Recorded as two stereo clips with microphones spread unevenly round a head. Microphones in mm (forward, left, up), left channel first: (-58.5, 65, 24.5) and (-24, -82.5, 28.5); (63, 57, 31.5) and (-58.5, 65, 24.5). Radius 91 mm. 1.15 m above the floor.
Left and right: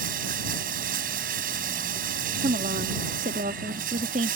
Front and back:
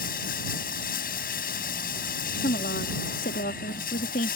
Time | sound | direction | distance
0.0 | running water | 30° right | ?
2.4 | a woman speaking | 30° right | ?